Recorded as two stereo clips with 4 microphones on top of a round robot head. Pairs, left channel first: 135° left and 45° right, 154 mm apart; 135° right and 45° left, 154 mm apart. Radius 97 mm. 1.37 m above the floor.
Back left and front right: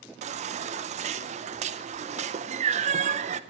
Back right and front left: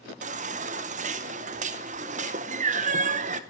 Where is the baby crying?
Straight ahead, 0.7 m.